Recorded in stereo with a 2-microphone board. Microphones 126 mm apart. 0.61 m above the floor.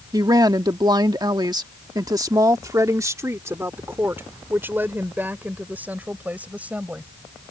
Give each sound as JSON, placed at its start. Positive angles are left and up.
{"t": 0.1, "sound": "a woman speaking", "side_deg": -30}